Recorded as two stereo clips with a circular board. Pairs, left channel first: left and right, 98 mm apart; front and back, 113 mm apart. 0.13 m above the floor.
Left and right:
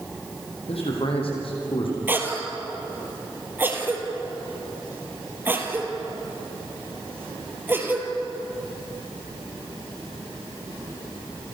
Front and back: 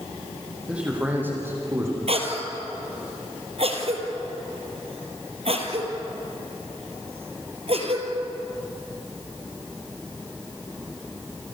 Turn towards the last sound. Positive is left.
turn(degrees=-160)